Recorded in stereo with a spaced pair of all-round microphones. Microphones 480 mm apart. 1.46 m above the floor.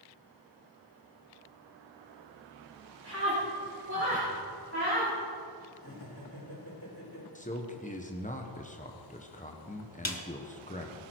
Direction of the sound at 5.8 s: 50° left (ahead or behind).